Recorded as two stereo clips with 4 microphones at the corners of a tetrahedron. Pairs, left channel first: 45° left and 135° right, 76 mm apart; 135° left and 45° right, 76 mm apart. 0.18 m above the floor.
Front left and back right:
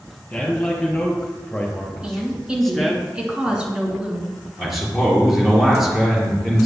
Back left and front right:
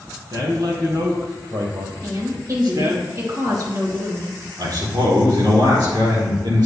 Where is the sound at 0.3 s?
30° right, 4 m; by 3.0 s 45° right, 2.0 m.